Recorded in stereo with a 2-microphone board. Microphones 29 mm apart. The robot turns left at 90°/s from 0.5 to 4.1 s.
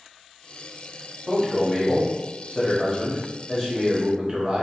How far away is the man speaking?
About 0.9 m.